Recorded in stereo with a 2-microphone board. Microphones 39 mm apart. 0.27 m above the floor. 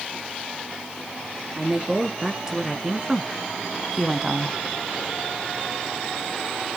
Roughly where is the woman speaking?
Centre.